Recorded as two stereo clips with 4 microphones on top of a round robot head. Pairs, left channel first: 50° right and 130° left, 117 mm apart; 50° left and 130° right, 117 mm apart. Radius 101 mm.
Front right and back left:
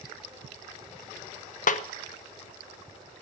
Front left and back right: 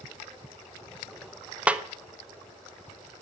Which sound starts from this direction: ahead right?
A snare drum, at 1.7 s.